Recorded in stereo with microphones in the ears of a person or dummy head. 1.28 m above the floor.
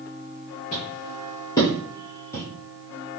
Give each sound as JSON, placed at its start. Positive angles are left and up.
{"t": 0.7, "sound": "footsteps", "side_deg": 25, "distance_m": 1.3}